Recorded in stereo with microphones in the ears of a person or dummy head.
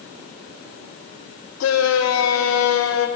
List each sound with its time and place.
1.6 s a shout: 80° left, 1.7 m